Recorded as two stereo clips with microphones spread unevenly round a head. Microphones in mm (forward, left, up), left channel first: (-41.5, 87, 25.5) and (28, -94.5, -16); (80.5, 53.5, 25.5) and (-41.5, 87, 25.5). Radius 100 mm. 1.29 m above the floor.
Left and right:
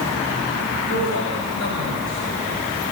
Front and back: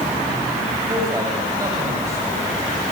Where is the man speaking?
105° left, 8 m.